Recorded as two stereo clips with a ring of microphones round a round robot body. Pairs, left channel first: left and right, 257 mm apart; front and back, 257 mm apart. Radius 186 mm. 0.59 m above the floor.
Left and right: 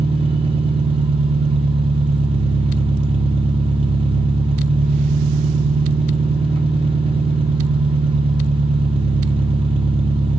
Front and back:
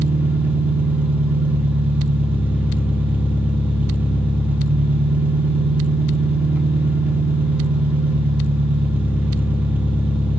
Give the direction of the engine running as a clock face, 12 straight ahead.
4 o'clock.